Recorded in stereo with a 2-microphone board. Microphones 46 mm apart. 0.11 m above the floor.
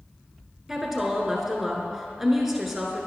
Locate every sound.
0.7 s a woman speaking: 5° right (ahead or behind), 1.1 m